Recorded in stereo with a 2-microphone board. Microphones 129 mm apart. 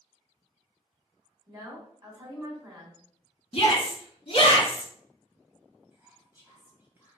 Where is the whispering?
15° right (ahead or behind), 1.2 m.